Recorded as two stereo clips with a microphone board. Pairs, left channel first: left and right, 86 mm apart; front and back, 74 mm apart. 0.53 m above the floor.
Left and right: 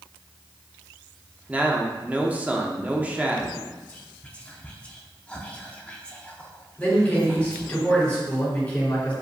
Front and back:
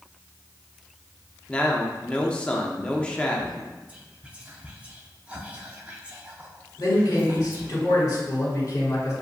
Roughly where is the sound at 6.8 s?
Ahead.